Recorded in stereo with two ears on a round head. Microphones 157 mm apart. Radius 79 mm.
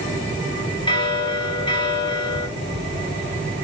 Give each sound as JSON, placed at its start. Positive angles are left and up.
{"t": 0.9, "sound": "a bell", "side_deg": 30, "distance_m": 1.9}